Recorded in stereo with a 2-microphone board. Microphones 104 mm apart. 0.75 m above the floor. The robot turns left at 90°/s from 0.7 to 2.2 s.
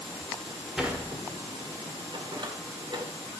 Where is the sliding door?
5° right (ahead or behind), 1.6 m; by 3.0 s 50° right (ahead or behind), 1.6 m.